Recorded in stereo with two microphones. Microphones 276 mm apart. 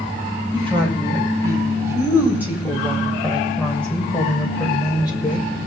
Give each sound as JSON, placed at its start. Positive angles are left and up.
{"t": 0.5, "sound": "a woman speaking", "side_deg": -20, "distance_m": 8.0}